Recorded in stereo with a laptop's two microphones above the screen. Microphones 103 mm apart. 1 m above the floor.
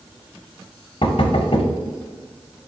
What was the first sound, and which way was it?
Knocking, 60° left (ahead or behind).